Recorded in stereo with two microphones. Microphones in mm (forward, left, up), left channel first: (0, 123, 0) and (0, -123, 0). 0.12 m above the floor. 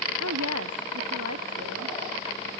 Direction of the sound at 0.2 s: 75° right (ahead or behind).